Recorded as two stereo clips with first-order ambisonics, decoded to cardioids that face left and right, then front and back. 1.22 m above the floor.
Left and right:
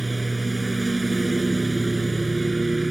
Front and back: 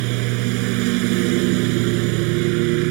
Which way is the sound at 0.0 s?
170° right.